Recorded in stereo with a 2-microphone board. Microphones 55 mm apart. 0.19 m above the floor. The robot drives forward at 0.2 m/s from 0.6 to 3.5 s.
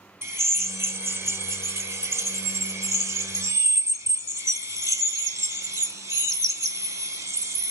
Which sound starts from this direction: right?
A drill, at 0.2 s.